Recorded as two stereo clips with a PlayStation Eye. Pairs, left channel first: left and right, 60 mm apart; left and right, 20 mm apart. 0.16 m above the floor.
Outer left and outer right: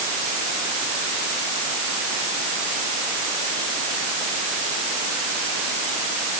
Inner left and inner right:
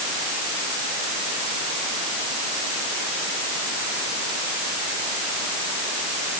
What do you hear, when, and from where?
Only background noise.